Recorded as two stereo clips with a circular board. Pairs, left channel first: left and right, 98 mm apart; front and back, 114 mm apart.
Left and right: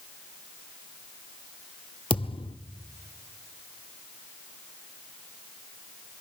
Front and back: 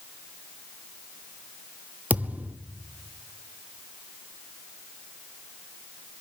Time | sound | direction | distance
2.1 | a thud | 105° left | 0.9 m